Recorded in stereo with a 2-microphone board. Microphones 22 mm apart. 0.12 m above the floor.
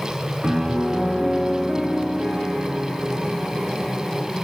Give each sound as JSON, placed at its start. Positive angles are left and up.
{"t": 0.4, "sound": "a piano", "side_deg": -60, "distance_m": 9.0}